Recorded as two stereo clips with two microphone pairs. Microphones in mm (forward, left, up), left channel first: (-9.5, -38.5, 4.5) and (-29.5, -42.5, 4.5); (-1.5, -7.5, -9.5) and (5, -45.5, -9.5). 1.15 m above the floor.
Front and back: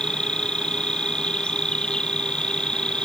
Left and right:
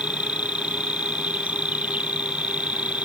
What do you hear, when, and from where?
0.0 s an insect: 30° right